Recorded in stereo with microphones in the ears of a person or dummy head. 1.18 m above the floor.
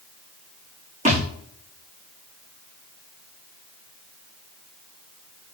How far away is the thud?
About 7.5 m.